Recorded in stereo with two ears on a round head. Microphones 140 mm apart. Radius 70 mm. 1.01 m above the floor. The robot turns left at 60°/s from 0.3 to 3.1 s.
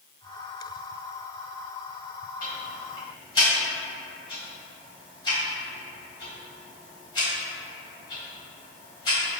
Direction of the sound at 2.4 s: 55° left (ahead or behind).